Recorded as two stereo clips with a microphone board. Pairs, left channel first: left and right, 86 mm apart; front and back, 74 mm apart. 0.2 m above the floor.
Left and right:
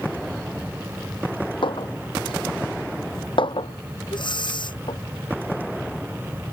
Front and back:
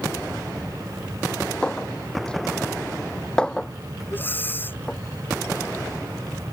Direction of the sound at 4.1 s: 65° left.